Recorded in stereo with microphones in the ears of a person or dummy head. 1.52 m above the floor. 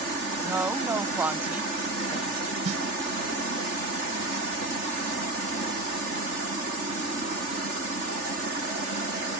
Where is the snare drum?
35° right (ahead or behind).